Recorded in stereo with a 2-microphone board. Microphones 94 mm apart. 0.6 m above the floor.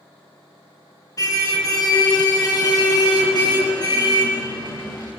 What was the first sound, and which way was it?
A car horn, 40° left (ahead or behind).